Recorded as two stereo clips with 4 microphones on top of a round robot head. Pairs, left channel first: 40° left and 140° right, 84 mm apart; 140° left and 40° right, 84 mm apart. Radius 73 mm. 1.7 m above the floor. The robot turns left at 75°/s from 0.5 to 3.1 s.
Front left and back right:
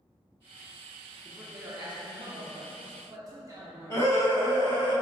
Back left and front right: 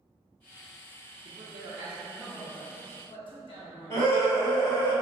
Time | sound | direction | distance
1.2 | a man speaking | 55° right | 0.5 m
3.9 | a scream | 90° left | 1.7 m